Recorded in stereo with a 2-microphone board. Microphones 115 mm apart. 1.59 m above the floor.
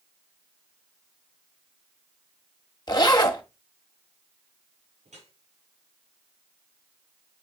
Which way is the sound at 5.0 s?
80° right.